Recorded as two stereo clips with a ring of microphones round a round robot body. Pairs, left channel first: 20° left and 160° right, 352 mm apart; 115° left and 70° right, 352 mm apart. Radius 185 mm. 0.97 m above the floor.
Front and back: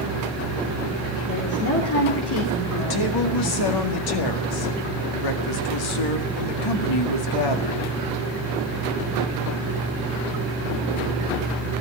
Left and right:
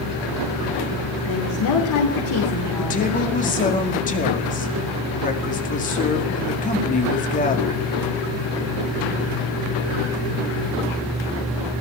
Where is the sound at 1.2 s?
75° left, 3 m.